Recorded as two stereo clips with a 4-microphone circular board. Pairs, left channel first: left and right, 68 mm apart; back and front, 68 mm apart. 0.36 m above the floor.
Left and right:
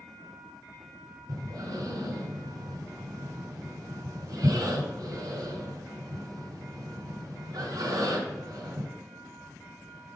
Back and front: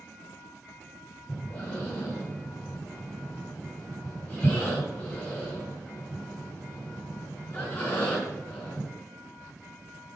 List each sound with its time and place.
1.3 s breathing: 120° right, 4.5 m